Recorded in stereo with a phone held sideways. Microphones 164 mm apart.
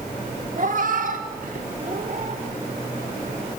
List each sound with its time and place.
0.6 s a cat meowing: 55° right (ahead or behind), 1.3 m; by 2.4 s 45° right (ahead or behind), 1.9 m